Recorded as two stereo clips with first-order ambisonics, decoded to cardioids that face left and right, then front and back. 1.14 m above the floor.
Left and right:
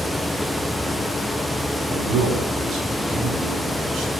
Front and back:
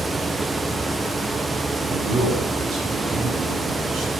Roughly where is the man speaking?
Behind right.